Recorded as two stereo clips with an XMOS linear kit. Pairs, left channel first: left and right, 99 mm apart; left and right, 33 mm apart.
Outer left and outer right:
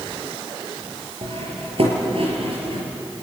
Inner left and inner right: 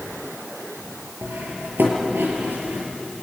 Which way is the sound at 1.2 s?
75° right (ahead or behind).